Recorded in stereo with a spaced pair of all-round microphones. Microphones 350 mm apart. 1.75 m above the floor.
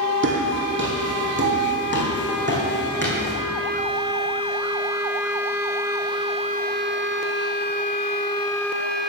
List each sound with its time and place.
0.2 s footsteps: 35° right (ahead or behind), 3 m; by 3.3 s 30° right (ahead or behind), 4.5 m